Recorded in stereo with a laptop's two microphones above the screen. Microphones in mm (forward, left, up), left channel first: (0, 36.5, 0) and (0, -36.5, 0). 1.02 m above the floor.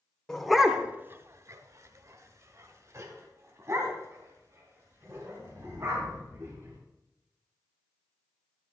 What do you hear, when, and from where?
0.3 s a dog barking: 5° left (ahead or behind), 0.9 m; by 6.8 s 35° right (ahead or behind), 5.5 m